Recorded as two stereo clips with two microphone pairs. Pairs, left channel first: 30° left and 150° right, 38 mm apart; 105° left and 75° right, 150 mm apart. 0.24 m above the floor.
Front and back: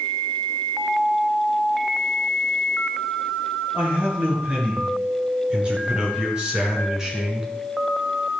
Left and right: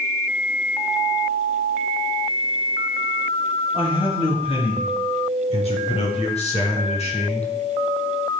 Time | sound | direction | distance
3.7 | a man speaking | 155° left | 4.5 m